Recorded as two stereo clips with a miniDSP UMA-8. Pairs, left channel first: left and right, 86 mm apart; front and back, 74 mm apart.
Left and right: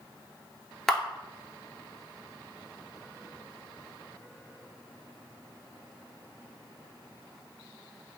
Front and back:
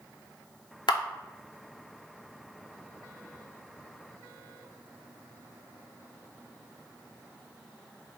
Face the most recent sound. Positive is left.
turn(degrees=5)